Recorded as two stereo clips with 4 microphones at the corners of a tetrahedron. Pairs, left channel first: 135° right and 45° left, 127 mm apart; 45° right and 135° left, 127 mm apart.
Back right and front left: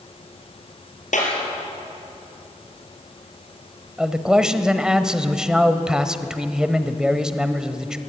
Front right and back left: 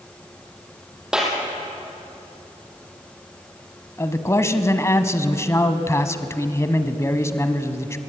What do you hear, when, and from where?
1.1 s a clap: 140° right, 4.5 m
4.0 s a man speaking: 30° right, 1.1 m